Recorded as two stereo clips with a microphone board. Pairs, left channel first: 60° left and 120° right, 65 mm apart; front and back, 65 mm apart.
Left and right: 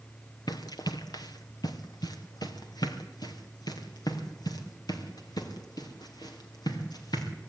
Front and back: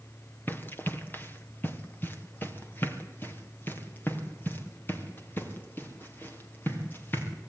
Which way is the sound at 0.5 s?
55° left.